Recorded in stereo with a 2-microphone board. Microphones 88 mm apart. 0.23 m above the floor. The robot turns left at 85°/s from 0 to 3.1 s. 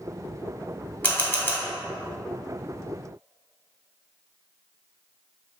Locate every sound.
1.0 s a camera shutter: 20° left (ahead or behind), 1.6 m